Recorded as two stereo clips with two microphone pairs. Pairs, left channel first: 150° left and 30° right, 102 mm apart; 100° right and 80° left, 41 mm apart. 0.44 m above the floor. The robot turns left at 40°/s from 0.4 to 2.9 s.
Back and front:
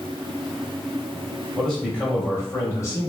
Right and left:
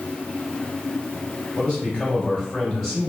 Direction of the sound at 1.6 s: 130° right.